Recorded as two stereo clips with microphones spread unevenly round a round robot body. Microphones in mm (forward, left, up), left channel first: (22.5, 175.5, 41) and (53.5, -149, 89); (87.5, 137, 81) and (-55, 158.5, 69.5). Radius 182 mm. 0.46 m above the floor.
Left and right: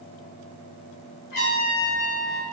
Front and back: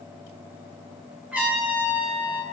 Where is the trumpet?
90° left, 3.5 m.